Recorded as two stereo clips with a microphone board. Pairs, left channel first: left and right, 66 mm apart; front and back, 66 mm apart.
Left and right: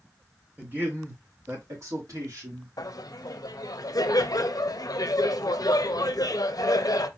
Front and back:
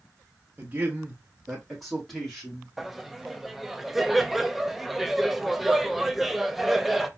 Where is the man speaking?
135° right, 1.2 m; by 2.7 s 80° right, 2 m.